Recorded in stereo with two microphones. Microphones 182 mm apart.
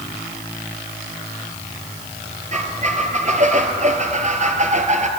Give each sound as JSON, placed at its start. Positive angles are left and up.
{"t": 2.5, "sound": "a squeak", "side_deg": -45, "distance_m": 1.1}